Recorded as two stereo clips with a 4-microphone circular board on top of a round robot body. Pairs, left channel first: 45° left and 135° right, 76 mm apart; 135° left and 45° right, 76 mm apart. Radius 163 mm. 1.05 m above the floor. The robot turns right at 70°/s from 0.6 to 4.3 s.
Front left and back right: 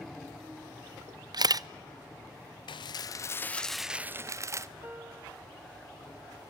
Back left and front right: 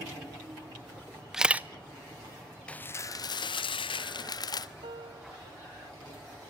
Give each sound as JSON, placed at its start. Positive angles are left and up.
{"t": 1.3, "sound": "a camera shutter", "azimuth_deg": -130, "distance_m": 0.7}
{"t": 2.7, "sound": "dishes clattering", "azimuth_deg": 60, "distance_m": 0.6}
{"t": 4.8, "sound": "a piano", "azimuth_deg": -65, "distance_m": 0.6}